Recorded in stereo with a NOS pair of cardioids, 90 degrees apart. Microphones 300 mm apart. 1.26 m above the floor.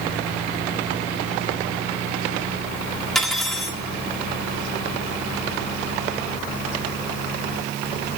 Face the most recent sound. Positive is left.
turn(degrees=0)